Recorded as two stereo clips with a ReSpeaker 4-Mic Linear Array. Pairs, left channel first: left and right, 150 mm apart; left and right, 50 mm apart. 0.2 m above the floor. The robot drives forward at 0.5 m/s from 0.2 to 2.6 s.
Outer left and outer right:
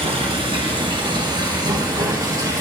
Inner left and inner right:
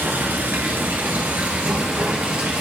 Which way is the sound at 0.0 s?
45° right (ahead or behind).